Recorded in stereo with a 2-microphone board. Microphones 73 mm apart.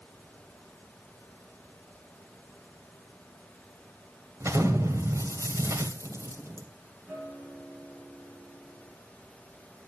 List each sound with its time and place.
4.4 s an explosion: 40° right (ahead or behind), 2.5 m
7.1 s a guitar: 10° right (ahead or behind), 9.5 m